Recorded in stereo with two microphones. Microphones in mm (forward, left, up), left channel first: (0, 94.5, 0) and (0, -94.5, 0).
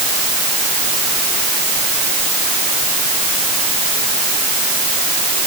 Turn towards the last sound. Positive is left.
No sound to turn to.